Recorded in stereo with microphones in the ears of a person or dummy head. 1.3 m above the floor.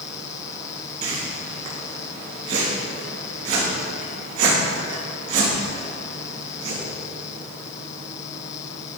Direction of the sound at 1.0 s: 45° right (ahead or behind).